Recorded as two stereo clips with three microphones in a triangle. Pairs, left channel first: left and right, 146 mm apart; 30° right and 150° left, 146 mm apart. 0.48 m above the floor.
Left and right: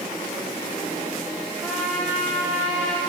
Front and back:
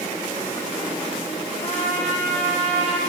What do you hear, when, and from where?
1.6 s a trumpet: 5° left, 9.5 m